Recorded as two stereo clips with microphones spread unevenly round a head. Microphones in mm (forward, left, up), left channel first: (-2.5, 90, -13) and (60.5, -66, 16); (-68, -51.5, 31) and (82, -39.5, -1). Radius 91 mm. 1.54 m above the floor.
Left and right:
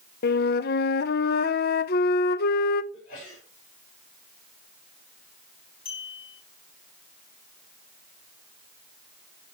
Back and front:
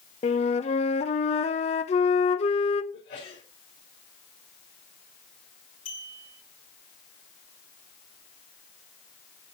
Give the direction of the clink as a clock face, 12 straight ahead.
7 o'clock.